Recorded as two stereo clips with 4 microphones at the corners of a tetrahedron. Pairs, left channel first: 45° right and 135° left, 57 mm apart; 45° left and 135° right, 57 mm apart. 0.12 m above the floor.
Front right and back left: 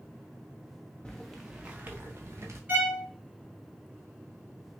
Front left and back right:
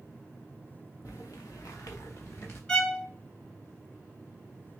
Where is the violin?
110° left, 1.6 m.